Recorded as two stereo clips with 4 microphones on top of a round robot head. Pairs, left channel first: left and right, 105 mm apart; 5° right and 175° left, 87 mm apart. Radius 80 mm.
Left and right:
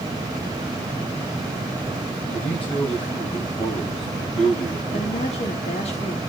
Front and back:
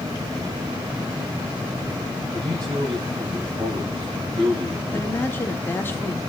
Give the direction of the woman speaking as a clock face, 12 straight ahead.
10 o'clock.